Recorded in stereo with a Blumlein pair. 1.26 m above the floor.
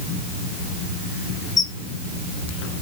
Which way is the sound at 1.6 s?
20° left.